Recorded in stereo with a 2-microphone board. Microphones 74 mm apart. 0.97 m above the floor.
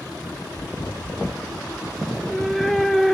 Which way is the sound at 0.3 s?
55° left (ahead or behind).